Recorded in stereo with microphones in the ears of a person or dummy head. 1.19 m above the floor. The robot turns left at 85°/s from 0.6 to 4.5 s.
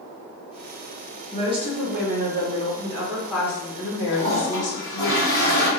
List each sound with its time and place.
1.3 s a woman speaking: 15° right, 0.9 m; by 5.1 s 70° left, 0.9 m
4.1 s a toilet flushing: 150° left, 1.9 m; by 5.7 s 120° left, 1.9 m